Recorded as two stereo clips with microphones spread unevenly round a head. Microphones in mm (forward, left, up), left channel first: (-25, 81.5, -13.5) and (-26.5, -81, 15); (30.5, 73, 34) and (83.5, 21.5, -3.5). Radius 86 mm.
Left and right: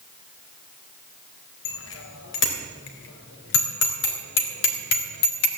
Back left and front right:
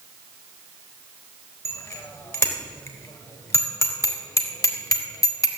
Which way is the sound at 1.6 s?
85° left.